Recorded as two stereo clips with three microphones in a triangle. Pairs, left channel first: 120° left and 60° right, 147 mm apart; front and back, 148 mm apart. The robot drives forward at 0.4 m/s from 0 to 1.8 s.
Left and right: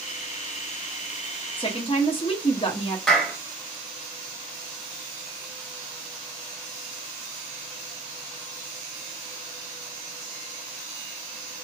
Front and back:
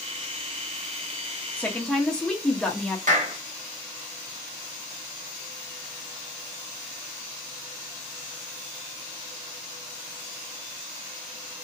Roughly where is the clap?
Behind right.